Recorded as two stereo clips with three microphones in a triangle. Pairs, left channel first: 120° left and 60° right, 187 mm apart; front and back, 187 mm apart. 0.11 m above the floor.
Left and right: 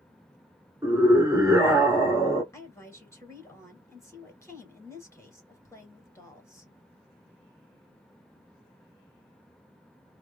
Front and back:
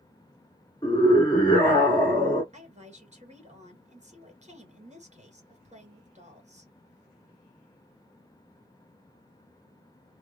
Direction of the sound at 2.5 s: 175° right.